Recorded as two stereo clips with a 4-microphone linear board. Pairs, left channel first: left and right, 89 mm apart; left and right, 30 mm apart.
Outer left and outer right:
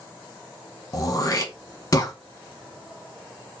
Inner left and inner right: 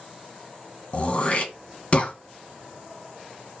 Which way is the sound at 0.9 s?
40° left (ahead or behind).